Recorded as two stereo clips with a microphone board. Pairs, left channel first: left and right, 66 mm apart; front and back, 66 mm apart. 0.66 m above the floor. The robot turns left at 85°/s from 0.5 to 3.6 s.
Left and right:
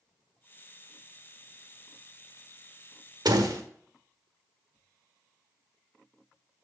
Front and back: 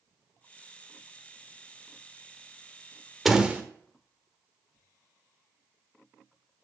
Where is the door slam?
95° right, 1.2 m; by 3.6 s 125° right, 1.2 m.